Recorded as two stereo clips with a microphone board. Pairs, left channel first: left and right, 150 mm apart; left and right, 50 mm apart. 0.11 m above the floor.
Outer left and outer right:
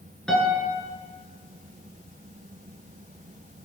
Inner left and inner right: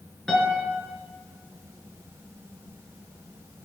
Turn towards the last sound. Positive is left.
turn(degrees=5)  # may be behind; listen again after turning